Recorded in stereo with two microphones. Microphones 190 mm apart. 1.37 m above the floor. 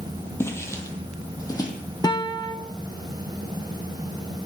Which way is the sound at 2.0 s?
20° left (ahead or behind).